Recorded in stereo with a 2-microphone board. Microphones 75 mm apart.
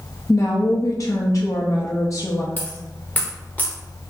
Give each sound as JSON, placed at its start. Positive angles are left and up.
{"t": 0.3, "sound": "a woman speaking", "side_deg": 45, "distance_m": 0.5}
{"t": 2.6, "sound": "a dropped coin", "side_deg": 20, "distance_m": 1.1}